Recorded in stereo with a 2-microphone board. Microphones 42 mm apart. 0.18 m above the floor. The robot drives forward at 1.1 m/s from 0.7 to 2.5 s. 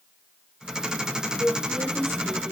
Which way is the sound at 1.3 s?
60° right (ahead or behind).